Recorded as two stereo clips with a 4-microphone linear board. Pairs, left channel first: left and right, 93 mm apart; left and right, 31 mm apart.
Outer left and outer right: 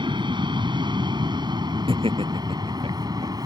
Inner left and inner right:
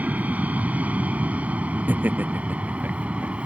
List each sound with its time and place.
0.0 s an aircraft: 55° right (ahead or behind); by 3.5 s 45° right (ahead or behind)
1.9 s laughter: 75° right (ahead or behind)